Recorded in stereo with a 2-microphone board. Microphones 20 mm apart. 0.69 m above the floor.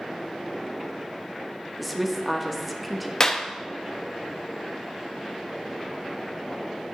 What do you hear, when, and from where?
1.8 s a woman speaking: 5° right (ahead or behind), 0.8 m
3.2 s a clap: 25° left (ahead or behind), 0.5 m